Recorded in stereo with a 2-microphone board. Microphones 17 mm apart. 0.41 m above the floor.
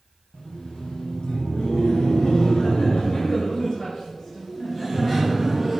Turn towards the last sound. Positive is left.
turn(degrees=5)  # may be behind; listen again after turning